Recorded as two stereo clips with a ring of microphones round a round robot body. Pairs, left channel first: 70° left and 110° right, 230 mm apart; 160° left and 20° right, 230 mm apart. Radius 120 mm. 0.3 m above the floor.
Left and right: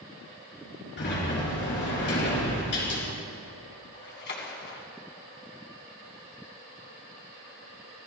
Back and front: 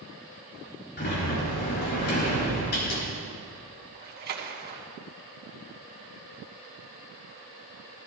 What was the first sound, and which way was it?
A sliding door, 110° left.